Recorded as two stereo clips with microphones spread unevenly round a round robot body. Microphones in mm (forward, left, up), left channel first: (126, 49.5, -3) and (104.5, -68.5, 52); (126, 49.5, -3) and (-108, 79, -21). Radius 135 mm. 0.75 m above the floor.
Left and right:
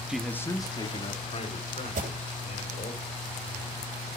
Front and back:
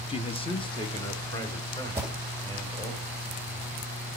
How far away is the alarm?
About 3 m.